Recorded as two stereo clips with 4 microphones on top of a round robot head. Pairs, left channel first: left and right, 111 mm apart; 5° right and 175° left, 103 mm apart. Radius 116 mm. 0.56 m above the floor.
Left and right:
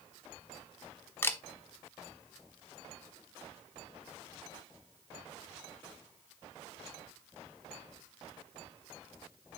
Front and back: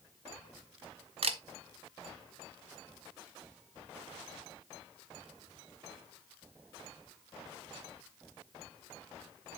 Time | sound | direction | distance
1.2 | a camera shutter | 160° left | 1.1 m